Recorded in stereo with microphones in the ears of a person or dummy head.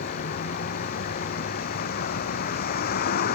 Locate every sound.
0.0 s a vehicle: 50° left (ahead or behind)